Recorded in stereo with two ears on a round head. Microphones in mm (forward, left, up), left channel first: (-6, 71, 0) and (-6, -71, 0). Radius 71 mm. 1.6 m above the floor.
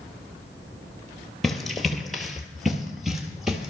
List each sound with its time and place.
1.4 s running footsteps: centre (ahead or behind), 1.8 m; by 3.7 s 5° right (ahead or behind), 2 m